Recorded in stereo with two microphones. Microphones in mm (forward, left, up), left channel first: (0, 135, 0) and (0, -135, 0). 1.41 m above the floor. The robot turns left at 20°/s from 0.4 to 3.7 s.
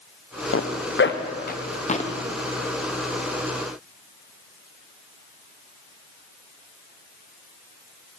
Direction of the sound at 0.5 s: 50° left (ahead or behind).